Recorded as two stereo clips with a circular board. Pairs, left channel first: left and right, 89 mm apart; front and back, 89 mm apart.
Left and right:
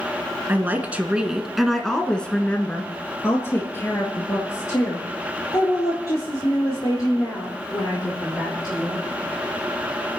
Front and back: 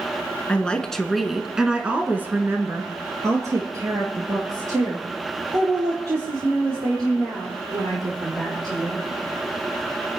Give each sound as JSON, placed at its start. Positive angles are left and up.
{"t": 0.5, "sound": "a woman speaking", "azimuth_deg": -60, "distance_m": 1.4}